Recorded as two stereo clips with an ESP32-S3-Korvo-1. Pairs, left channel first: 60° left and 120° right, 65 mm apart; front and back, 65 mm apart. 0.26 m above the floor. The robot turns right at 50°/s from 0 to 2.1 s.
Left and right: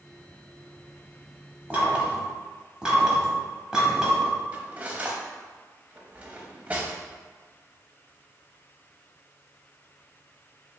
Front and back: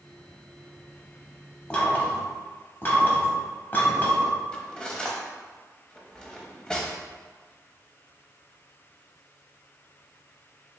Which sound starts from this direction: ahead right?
Knocking, at 1.7 s.